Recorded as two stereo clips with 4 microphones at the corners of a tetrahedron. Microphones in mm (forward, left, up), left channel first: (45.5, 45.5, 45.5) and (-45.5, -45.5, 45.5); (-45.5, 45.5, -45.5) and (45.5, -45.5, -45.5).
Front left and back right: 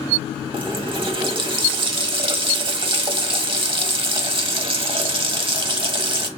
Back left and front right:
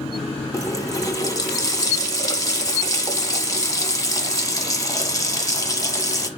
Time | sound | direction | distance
0.5 | a running tap | 170° right | 1.0 m